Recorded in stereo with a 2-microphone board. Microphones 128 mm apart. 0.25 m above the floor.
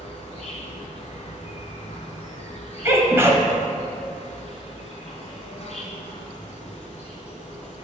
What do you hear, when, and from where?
0.0 s an insect: 55° left (ahead or behind), 1.1 m
2.9 s a sneeze: 20° right (ahead or behind), 1.0 m